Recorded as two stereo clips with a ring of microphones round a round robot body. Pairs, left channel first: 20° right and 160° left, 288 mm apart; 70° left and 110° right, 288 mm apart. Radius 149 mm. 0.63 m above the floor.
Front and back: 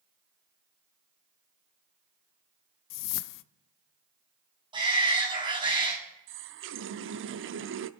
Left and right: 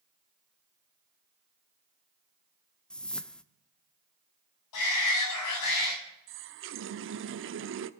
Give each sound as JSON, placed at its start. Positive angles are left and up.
{"t": 2.9, "sound": "a whoosh", "azimuth_deg": -20, "distance_m": 0.5}
{"t": 4.7, "sound": "a shout", "azimuth_deg": 85, "distance_m": 5.5}
{"t": 6.3, "sound": "a running tap", "azimuth_deg": -155, "distance_m": 0.7}